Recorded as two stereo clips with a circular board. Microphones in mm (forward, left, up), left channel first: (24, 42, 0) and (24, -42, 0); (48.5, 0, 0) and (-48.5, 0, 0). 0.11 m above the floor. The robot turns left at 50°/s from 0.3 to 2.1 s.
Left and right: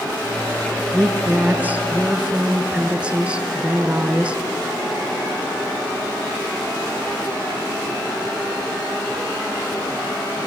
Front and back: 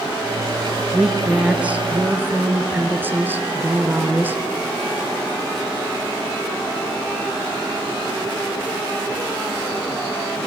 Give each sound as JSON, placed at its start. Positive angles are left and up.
{"t": 0.9, "sound": "a woman speaking", "azimuth_deg": -90, "distance_m": 1.1}